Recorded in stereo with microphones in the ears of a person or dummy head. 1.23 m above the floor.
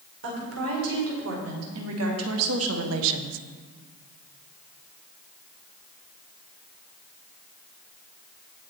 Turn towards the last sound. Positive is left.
turn(degrees=-60)  # may be behind; listen again after turning